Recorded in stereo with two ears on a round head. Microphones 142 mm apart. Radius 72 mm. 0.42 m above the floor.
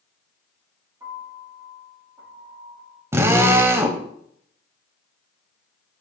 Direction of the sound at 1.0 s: 20° right (ahead or behind).